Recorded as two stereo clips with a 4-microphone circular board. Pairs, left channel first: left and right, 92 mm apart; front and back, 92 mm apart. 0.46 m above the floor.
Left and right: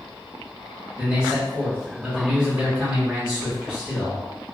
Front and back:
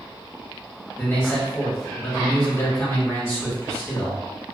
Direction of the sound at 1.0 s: 20° right.